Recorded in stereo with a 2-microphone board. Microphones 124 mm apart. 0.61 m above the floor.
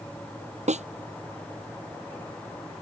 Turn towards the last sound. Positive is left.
turn(degrees=-80)